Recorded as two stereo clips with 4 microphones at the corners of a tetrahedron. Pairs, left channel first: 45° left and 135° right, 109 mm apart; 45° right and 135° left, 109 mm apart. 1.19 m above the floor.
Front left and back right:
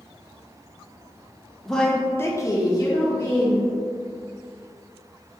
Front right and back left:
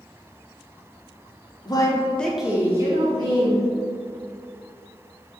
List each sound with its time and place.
1.6 s a woman speaking: 45° right, 0.8 m; by 3.7 s 100° left, 1.4 m